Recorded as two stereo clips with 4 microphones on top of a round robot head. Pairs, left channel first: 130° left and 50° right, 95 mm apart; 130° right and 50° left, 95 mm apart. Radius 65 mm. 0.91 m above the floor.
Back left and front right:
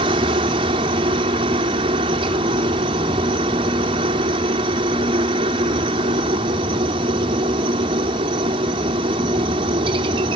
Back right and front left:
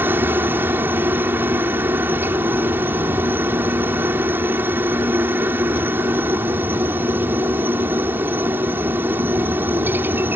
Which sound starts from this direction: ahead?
A helicopter, at 0.0 s.